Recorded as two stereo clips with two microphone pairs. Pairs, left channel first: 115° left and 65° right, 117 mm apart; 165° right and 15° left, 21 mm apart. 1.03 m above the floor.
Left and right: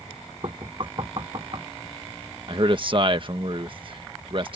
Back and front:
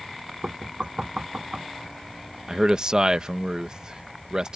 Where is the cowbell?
I don't hear a cowbell.